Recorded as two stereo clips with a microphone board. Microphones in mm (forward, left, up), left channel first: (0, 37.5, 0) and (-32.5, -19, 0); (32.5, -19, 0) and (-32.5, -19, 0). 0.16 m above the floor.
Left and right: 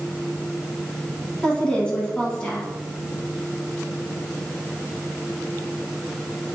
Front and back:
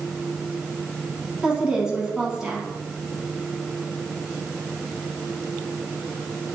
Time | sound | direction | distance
1.4 | a woman speaking | 115° left | 1.3 m